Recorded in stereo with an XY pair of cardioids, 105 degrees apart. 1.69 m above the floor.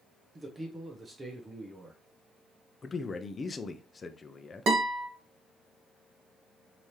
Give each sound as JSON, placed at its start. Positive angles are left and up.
{"t": 0.3, "sound": "a man speaking", "azimuth_deg": -25, "distance_m": 1.1}
{"t": 2.8, "sound": "a man speaking", "azimuth_deg": 35, "distance_m": 0.7}
{"t": 4.7, "sound": "a guitar", "azimuth_deg": -55, "distance_m": 1.8}